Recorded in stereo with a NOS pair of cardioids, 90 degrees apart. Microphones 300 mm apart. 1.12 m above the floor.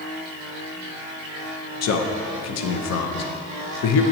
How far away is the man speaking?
About 0.7 m.